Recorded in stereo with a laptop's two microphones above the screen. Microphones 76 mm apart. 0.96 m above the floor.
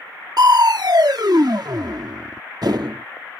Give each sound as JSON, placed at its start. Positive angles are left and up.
{"t": 0.4, "sound": "crushing", "side_deg": -60}